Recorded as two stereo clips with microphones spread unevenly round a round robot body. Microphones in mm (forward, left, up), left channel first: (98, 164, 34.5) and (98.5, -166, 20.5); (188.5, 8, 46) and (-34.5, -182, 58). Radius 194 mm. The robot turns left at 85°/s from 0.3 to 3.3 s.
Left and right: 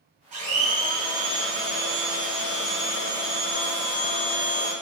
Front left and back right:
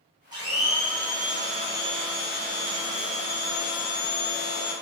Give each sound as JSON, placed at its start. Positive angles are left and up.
{"t": 0.3, "sound": "a blender", "azimuth_deg": -75, "distance_m": 1.2}